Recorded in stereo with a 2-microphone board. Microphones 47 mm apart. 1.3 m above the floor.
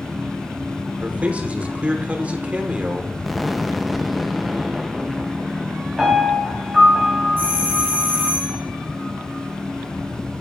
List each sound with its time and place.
1.0 s a man speaking: 30° right (ahead or behind), 1.2 m
3.2 s an explosion: centre (ahead or behind), 0.5 m
6.0 s a piano: 15° right (ahead or behind), 4.5 m
7.4 s a doorbell: 45° right (ahead or behind), 5 m